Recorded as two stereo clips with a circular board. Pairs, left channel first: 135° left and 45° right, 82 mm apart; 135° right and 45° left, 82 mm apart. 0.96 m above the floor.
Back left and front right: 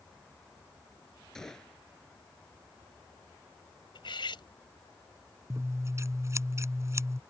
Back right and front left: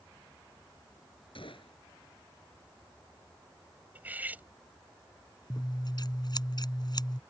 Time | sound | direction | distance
1.4 | a gunshot | 140° right | ?
4.0 | cutlery clinking | 115° left | ?
5.5 | scissors | 100° right | ?